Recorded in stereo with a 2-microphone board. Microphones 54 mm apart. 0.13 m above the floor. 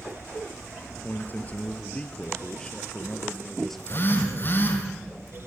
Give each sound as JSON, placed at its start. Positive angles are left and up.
{"t": 1.0, "sound": "a man speaking", "side_deg": 35, "distance_m": 2.5}
{"t": 3.8, "sound": "a phone buzzing", "side_deg": 40, "distance_m": 4.5}